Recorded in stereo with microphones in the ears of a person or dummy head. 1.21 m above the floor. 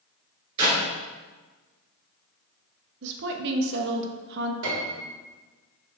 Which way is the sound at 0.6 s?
25° right (ahead or behind).